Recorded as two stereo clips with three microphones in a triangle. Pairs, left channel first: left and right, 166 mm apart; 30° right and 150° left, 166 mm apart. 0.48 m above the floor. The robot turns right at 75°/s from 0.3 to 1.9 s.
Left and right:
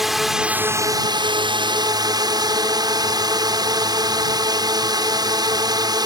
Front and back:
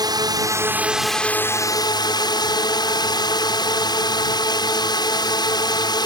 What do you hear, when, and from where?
0.0 s a drone: straight behind; by 6.1 s 60° right